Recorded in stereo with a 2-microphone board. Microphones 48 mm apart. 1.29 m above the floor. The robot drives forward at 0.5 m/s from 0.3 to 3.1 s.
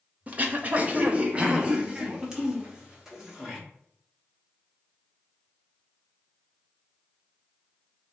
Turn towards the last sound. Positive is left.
turn(degrees=-15)  # may be behind; listen again after turning